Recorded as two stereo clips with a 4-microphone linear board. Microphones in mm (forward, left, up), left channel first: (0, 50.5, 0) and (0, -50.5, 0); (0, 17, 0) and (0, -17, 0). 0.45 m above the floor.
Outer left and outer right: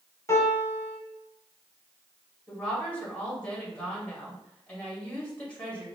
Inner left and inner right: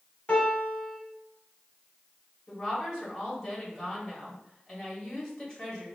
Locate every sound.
0.3 s a piano: 35° left (ahead or behind), 1.7 m
2.5 s a woman speaking: 15° left (ahead or behind), 2.5 m